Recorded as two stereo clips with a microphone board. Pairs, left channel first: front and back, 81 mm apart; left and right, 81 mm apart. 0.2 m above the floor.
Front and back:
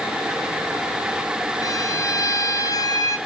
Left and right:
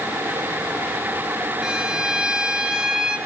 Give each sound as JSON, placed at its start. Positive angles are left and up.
{"t": 1.6, "sound": "a violin", "azimuth_deg": -10, "distance_m": 2.5}